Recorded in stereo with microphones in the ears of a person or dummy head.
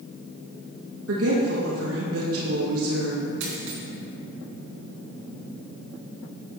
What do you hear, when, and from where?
1.1 s a woman speaking: 75° right (ahead or behind), 1.5 m
3.4 s a dropped coin: 75° right (ahead or behind), 3 m